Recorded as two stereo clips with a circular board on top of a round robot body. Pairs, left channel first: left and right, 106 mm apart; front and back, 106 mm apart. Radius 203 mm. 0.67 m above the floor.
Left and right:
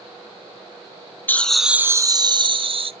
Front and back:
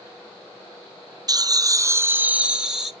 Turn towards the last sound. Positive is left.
turn(degrees=-95)